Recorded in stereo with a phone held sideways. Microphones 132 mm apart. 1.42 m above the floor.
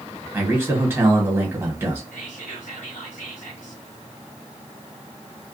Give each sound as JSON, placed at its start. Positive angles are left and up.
{"t": 0.3, "sound": "a man speaking", "side_deg": -20, "distance_m": 1.2}
{"t": 2.1, "sound": "whispering", "side_deg": 85, "distance_m": 0.7}